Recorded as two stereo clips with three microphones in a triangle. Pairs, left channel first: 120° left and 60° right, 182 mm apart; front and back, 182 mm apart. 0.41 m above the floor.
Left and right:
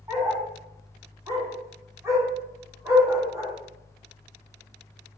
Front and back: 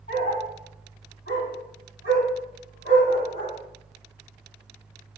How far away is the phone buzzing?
I don't hear a phone buzzing.